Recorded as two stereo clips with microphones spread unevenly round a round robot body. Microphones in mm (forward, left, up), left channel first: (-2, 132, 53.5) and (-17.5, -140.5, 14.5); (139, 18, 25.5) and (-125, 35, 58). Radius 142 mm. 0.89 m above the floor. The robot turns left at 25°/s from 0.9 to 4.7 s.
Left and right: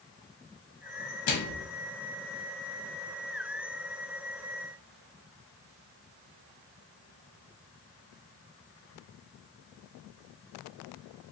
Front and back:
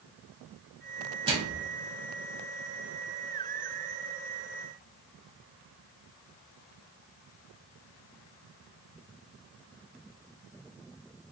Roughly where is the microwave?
Left.